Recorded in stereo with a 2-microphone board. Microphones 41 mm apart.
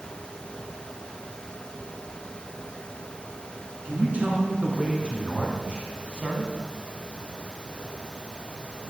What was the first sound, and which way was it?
A man speaking, 35° right (ahead or behind).